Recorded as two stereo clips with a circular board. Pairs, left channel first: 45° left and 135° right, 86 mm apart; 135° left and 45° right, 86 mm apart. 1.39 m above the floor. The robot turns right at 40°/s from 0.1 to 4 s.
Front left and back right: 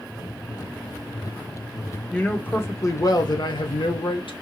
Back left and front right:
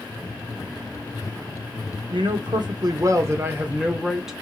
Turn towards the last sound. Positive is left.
turn(degrees=40)